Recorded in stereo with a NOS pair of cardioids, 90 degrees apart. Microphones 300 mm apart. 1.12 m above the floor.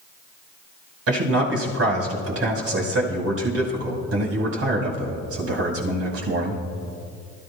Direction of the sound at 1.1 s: 50° right.